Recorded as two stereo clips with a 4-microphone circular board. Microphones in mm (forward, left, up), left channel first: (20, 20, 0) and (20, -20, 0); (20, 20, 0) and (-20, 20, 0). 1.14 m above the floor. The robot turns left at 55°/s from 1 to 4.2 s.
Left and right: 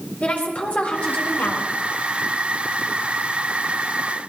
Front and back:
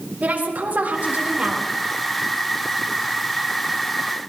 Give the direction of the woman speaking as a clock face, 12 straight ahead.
7 o'clock.